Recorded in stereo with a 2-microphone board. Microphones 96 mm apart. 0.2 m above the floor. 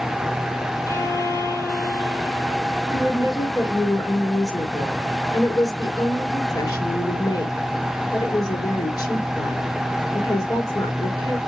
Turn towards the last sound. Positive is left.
turn(degrees=45)  # may be behind; listen again after turning